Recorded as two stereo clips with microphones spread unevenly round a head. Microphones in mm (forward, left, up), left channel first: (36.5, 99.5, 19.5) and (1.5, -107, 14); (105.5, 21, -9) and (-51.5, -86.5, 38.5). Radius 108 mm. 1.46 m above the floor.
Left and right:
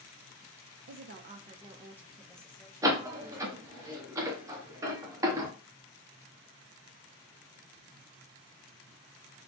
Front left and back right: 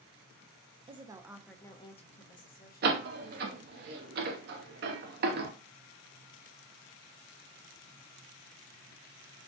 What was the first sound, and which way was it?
A woman speaking, 80° right.